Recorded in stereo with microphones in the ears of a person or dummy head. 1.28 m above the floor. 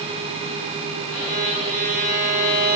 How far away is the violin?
About 3.5 m.